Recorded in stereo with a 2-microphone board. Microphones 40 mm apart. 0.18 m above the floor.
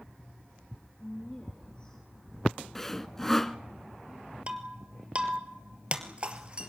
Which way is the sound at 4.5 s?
30° right (ahead or behind).